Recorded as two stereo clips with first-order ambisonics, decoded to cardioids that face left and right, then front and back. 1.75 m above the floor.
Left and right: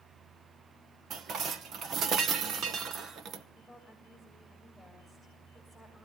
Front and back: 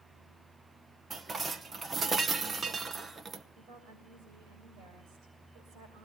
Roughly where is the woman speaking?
Behind.